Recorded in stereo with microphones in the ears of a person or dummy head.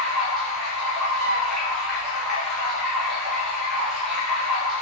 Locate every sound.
0.0 s running water: centre (ahead or behind), 1.3 m
1.2 s a flute: 75° right (ahead or behind), 0.6 m